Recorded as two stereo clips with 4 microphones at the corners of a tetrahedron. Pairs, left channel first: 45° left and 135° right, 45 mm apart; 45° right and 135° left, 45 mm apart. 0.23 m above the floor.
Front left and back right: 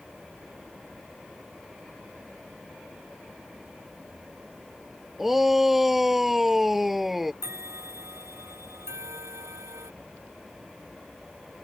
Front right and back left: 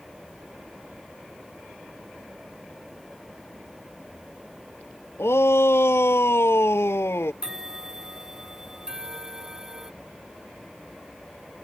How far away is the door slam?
No door slam in this recording.